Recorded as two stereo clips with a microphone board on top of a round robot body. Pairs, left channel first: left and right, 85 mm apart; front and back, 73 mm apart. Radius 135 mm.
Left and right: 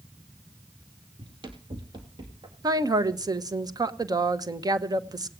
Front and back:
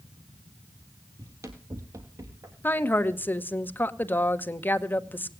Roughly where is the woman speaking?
Ahead right.